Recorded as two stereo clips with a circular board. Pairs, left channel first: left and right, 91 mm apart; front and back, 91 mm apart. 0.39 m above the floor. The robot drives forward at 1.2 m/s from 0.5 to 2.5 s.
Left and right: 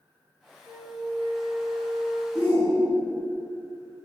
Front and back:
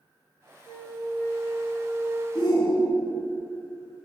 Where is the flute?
55° right, 2.5 m; by 2.2 s 100° right, 2 m.